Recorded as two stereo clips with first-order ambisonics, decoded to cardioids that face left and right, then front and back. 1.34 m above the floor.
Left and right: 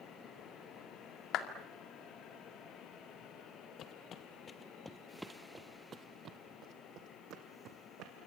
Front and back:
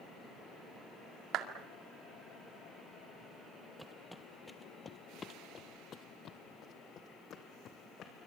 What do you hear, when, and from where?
1.3 s a clap: 135° left, 2 m
3.8 s footsteps: 95° left, 1.6 m; by 8.3 s 55° right, 3.5 m